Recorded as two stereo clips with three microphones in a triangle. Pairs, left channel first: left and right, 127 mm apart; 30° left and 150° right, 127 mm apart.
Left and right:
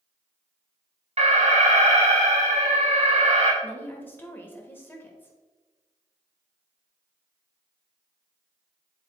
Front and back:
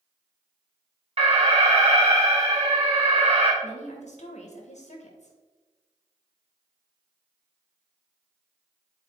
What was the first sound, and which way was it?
An alarm, 115° right.